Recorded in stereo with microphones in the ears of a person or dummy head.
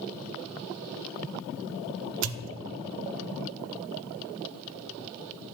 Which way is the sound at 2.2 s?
80° right.